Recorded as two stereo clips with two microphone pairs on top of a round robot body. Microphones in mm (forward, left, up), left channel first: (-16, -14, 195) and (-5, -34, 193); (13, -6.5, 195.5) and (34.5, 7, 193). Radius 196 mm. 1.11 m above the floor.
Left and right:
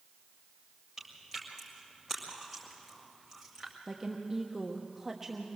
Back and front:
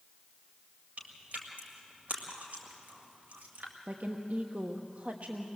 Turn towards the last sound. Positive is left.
turn(degrees=15)